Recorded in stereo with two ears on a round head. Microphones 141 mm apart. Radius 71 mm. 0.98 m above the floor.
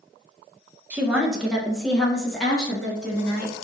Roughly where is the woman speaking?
Centre.